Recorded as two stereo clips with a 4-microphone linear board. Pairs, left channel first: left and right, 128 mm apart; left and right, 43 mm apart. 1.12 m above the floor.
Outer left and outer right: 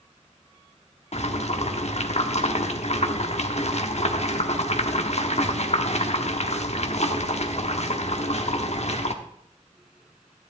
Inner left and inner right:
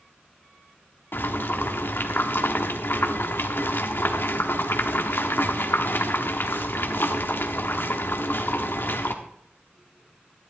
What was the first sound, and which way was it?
Boiling, 60° left (ahead or behind).